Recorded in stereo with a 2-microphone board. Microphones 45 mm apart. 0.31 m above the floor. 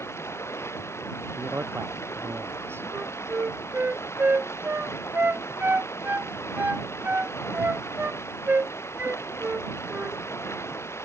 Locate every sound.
0.0 s running water: 80° left
1.4 s a man speaking: 60° right (ahead or behind)
2.9 s a flute: 50° right (ahead or behind)